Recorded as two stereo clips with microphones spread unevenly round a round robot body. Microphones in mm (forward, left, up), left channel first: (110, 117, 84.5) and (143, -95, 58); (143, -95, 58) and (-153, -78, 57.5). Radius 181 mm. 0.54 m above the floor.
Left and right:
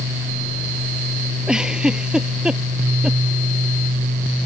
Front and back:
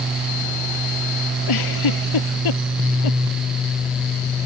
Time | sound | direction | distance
1.5 | a giggle | 5° left | ?